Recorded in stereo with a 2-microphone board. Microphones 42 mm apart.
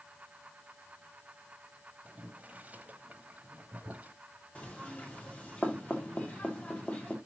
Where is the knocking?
30° left (ahead or behind), 1.9 m.